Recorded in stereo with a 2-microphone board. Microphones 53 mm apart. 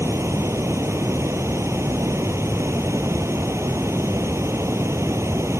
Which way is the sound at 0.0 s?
60° right (ahead or behind).